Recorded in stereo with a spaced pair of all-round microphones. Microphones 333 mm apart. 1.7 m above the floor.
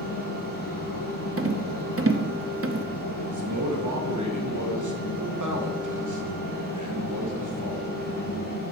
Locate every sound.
0.0 s a fan: 75° left (ahead or behind), 2 m
1.4 s a rattle: 40° right (ahead or behind), 0.6 m
3.3 s a man speaking: 65° right (ahead or behind), 1.3 m